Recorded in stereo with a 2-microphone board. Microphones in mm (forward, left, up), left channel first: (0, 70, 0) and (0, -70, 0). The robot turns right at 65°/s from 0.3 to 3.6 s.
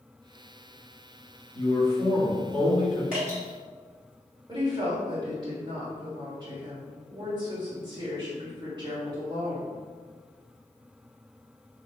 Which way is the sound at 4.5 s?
30° right (ahead or behind).